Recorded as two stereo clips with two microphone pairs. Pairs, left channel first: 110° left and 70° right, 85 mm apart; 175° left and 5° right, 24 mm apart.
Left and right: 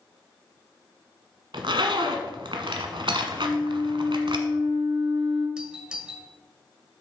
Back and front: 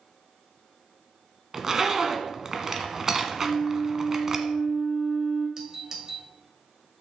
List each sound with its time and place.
1.5 s a zipper: 75° right, 1.2 m
3.4 s a flute: 30° left, 4.5 m
5.6 s a doorbell: 5° right, 1.5 m